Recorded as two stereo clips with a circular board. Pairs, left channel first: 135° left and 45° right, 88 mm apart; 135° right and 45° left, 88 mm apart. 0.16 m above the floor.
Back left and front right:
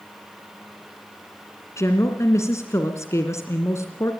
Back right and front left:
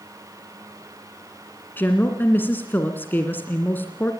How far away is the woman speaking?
About 1.9 m.